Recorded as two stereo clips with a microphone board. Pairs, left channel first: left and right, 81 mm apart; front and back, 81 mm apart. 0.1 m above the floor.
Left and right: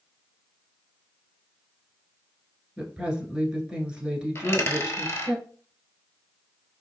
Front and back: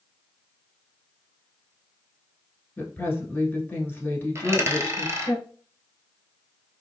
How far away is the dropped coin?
About 0.8 m.